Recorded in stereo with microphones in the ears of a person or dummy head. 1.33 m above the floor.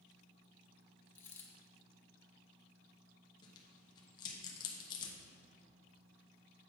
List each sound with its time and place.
1.1 s a dropped coin: 10° left (ahead or behind), 1.1 m
3.4 s tearing paper: 25° left (ahead or behind), 1.0 m